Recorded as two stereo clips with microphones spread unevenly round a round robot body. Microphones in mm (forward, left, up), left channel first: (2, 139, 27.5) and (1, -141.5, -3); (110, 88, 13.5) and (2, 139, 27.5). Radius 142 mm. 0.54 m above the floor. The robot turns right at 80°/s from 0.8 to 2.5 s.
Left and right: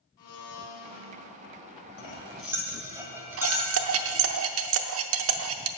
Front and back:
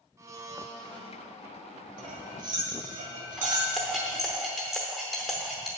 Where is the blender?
90° left, 2.5 m; by 1.2 s 120° left, 2.5 m.